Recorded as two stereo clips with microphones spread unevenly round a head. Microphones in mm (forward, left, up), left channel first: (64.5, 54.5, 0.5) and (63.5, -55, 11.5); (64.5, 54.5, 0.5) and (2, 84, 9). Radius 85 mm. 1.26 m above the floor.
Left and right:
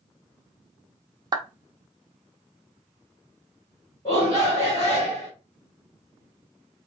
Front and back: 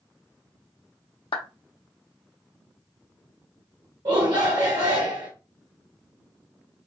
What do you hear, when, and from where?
1.3 s a clap: 35° right, 0.7 m
4.0 s a shout: 145° left, 1.3 m